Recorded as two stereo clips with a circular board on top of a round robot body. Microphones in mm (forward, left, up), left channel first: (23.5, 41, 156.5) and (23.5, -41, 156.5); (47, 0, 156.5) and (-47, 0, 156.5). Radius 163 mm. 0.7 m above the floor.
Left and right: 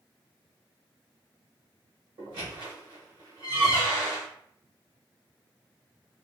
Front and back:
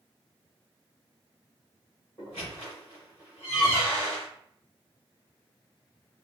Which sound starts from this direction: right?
A squeak, at 2.2 s.